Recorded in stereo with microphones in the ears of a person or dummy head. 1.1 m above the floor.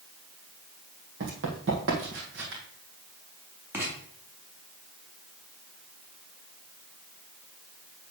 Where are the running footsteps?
50° right (ahead or behind), 2 m; by 2.6 s 65° right (ahead or behind), 2.5 m.